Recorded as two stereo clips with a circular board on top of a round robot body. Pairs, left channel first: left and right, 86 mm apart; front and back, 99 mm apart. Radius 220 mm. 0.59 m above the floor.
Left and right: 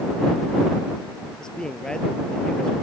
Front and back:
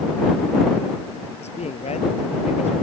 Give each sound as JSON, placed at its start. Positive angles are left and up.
{"t": 1.4, "sound": "a man speaking", "azimuth_deg": 5}